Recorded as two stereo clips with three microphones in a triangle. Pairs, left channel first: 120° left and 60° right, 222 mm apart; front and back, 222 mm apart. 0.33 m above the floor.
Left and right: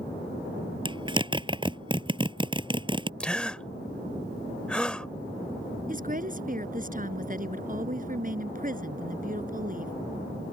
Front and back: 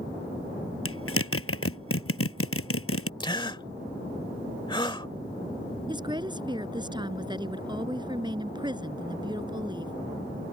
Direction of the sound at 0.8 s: 10° left.